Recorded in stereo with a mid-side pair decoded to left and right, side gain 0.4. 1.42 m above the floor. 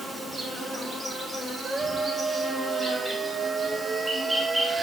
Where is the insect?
25° right, 4 m.